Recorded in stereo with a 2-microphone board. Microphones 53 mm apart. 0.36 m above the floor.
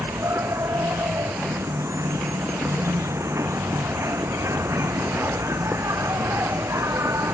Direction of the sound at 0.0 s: 60° right (ahead or behind).